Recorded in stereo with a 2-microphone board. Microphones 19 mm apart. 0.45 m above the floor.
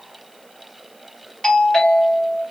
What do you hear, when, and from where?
1.4 s a doorbell: 40° left (ahead or behind), 2.5 m